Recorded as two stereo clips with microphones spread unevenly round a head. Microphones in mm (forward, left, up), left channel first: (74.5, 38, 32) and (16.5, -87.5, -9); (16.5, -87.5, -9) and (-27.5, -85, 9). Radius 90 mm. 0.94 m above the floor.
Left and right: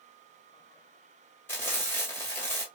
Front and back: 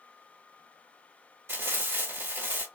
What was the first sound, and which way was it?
Frying, 140° left.